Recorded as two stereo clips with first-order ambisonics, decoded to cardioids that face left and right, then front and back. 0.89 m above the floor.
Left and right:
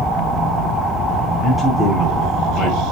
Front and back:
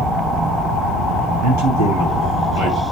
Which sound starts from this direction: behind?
A man speaking, at 1.4 s.